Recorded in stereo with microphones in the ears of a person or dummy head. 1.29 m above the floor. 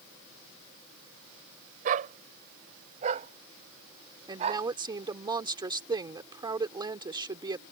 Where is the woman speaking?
25° right (ahead or behind).